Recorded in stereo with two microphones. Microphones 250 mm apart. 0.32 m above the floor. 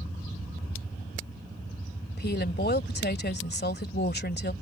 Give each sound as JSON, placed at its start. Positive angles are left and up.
{"t": 2.2, "sound": "a woman speaking", "side_deg": 40}